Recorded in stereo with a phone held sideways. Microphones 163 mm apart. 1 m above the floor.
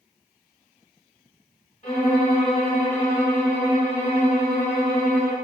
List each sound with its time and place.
1.8 s a violin: 45° left (ahead or behind), 1.6 m